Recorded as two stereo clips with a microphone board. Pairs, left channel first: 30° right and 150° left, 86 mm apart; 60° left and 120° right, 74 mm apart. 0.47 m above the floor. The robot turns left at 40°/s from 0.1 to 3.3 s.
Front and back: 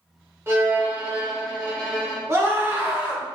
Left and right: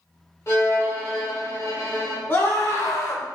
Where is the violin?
100° left, 1.2 m; by 2.2 s 30° left, 1.2 m.